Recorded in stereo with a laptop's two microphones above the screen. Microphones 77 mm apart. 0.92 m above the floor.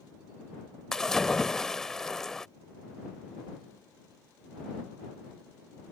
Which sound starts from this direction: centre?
A splash, at 0.9 s.